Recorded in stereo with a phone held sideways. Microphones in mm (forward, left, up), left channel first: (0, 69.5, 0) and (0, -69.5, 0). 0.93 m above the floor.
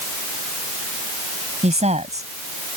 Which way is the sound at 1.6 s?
55° right (ahead or behind).